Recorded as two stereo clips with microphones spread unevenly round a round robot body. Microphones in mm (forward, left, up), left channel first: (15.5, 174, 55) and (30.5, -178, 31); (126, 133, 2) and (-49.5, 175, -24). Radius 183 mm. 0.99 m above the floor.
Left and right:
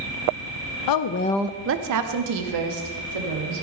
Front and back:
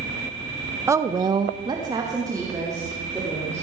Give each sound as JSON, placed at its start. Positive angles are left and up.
{"t": 0.9, "sound": "a woman speaking", "azimuth_deg": 100, "distance_m": 0.8}